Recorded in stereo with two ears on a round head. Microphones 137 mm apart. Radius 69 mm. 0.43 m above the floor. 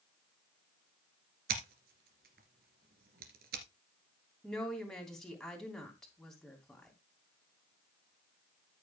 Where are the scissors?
70° right (ahead or behind), 2.5 m.